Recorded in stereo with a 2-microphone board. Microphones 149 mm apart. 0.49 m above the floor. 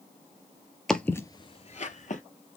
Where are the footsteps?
5° left (ahead or behind), 0.6 m; by 2.2 s 60° left (ahead or behind), 0.8 m.